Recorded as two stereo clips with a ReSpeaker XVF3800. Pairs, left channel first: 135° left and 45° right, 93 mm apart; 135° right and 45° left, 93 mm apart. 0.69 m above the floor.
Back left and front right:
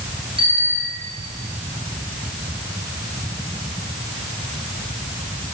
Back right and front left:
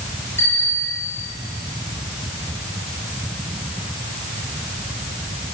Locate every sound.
0.4 s a bicycle bell: 70° right, 8 m